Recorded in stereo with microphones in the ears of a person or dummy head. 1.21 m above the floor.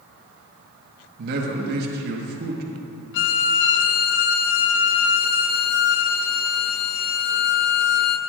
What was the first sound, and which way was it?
A man speaking, 55° right (ahead or behind).